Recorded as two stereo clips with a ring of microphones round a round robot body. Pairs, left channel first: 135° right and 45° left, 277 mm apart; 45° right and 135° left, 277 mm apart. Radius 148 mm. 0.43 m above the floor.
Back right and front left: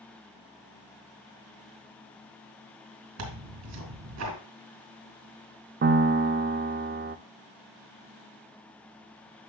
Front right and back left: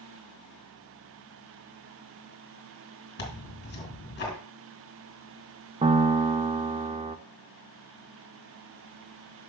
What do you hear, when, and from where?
3.2 s tearing paper: 10° left, 2 m
5.8 s a piano: 75° left, 0.5 m